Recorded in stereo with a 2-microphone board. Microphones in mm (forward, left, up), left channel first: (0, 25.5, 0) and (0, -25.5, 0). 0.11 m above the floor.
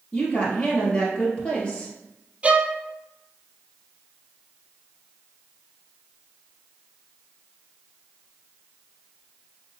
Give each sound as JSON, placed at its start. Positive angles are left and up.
{"t": 0.1, "sound": "a woman speaking", "side_deg": 25, "distance_m": 2.0}
{"t": 2.4, "sound": "a violin", "side_deg": -30, "distance_m": 0.5}